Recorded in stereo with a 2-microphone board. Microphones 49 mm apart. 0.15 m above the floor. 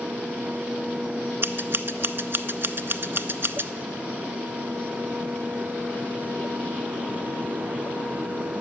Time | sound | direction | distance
1.4 | scissors | 50° right (ahead or behind) | 0.5 m